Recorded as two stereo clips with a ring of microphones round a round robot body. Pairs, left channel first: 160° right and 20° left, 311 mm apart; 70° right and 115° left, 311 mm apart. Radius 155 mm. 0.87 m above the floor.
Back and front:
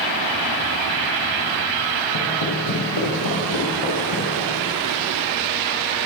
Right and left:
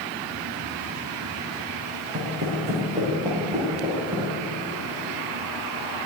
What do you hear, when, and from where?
2.1 s footsteps: 170° left, 4 m; by 4.3 s 165° right, 6.5 m